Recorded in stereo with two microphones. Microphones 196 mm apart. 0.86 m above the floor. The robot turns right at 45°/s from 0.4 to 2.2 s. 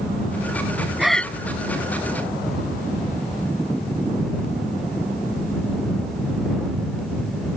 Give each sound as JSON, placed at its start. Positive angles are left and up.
{"t": 1.0, "sound": "breathing", "side_deg": -5}